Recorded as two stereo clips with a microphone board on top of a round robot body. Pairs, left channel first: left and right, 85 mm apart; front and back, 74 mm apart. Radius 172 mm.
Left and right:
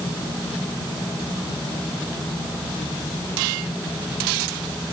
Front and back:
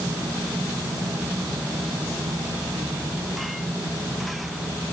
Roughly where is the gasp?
No gasp in this recording.